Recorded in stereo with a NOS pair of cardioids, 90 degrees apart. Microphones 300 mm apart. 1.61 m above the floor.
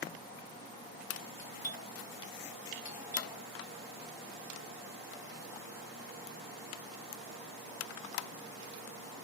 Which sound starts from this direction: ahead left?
A doorbell, at 1.4 s.